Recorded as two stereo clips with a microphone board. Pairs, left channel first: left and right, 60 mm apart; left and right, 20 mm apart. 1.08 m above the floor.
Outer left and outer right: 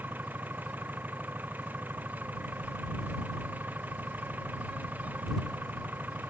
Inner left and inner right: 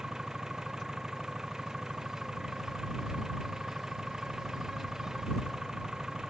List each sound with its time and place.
0.0 s an engine running: 30° right (ahead or behind)